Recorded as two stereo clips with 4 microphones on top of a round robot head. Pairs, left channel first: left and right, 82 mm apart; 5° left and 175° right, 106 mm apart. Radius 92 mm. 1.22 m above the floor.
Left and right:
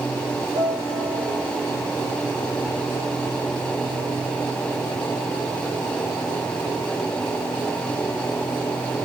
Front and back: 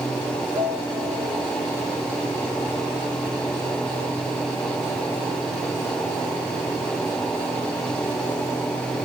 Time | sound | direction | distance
0.6 | a piano | 120° right | 3.5 m